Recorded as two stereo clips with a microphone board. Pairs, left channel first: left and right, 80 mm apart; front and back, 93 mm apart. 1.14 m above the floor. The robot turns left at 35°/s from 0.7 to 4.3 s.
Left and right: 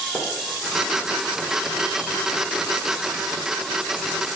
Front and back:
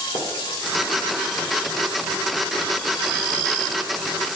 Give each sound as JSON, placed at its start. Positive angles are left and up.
{"t": 0.1, "sound": "a splash", "azimuth_deg": 10, "distance_m": 1.7}